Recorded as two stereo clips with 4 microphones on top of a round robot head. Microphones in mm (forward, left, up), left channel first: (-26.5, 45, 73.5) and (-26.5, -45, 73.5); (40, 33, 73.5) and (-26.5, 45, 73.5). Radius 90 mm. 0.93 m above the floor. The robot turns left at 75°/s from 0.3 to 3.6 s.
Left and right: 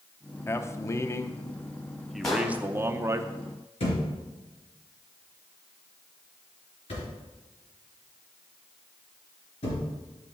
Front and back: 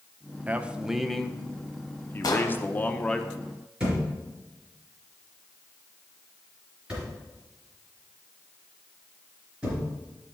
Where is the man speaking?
125° left, 0.7 m; by 3.2 s 85° right, 0.7 m.